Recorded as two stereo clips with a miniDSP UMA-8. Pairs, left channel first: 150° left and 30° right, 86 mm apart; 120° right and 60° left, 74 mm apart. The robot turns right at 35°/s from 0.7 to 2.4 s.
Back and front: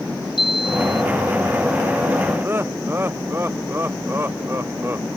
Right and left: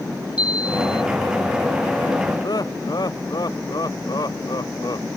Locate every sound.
0.4 s a chime: 135° left; by 1.0 s 145° left
2.4 s laughter: 95° right